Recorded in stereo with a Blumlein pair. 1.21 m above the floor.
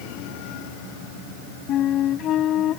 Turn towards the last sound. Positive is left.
turn(degrees=30)